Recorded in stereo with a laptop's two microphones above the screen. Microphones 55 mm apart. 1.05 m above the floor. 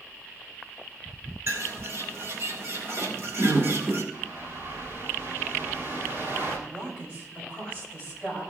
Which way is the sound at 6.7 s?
20° right (ahead or behind).